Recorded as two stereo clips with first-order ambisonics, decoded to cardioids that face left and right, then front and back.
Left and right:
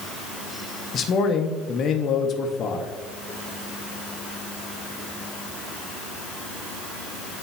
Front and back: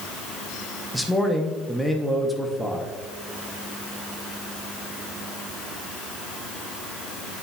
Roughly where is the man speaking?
Left.